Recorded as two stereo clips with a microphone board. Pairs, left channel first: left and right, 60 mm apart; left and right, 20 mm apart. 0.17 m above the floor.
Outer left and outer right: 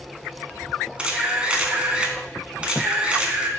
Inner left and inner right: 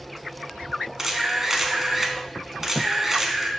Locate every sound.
1.0 s a camera shutter: 20° right (ahead or behind), 0.5 m